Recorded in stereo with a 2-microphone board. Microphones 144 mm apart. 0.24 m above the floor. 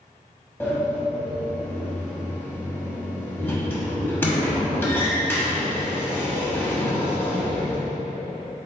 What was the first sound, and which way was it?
A sliding door, 15° left (ahead or behind).